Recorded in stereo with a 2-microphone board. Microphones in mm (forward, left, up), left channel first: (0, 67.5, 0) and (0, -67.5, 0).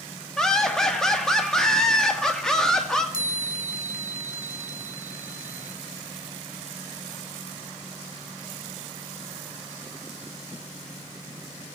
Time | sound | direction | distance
0.4 | laughter | 5° left (ahead or behind) | 1.6 m
3.1 | a chime | 65° right (ahead or behind) | 2 m